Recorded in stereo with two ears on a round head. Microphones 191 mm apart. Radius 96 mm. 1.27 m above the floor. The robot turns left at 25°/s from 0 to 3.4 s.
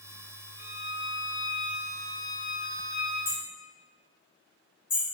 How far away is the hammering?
About 1.8 m.